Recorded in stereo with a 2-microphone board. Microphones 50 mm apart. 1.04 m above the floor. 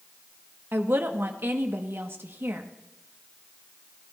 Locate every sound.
0.7 s a woman speaking: 50° right (ahead or behind), 1.4 m